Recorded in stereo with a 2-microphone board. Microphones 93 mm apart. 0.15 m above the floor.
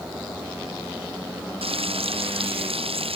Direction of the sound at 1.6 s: 85° right.